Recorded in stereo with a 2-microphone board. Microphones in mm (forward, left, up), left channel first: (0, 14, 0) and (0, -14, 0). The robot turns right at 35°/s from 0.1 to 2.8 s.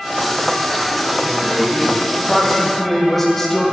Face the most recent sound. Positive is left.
turn(degrees=15)